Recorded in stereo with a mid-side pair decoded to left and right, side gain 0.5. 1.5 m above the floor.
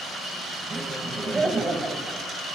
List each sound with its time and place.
0.7 s laughter: 30° right, 1.3 m